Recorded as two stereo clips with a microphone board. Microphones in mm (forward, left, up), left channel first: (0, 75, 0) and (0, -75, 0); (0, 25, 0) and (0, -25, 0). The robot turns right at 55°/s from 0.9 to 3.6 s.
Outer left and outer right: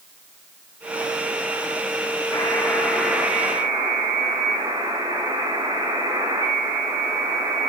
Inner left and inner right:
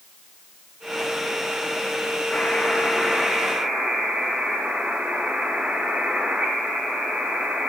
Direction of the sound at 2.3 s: 140° left.